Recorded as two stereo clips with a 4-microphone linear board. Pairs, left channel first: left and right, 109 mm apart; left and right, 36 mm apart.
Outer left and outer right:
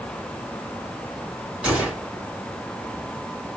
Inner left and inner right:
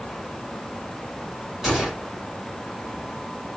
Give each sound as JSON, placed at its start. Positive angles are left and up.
{"t": 1.6, "sound": "a gunshot", "side_deg": -10, "distance_m": 2.0}